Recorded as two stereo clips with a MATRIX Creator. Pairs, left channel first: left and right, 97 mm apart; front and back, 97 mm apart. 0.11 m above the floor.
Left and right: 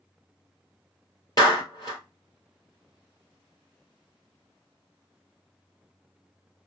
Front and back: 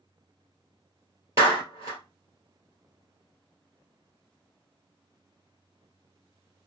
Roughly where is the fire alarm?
I don't hear a fire alarm.